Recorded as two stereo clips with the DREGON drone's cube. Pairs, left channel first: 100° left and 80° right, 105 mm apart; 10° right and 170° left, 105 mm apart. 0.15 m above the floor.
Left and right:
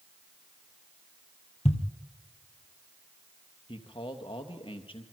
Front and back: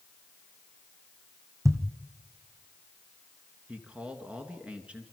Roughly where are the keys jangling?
I don't hear keys jangling.